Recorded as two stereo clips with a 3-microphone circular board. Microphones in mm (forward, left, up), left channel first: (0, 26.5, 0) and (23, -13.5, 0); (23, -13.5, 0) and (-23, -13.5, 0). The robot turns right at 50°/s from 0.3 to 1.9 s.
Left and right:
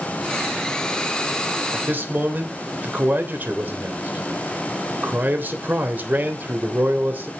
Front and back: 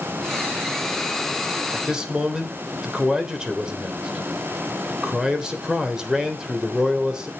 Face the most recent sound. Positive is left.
turn(degrees=-105)